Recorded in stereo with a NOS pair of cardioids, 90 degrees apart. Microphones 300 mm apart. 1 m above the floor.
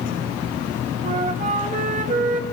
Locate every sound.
1.0 s a flute: 25° right, 2 m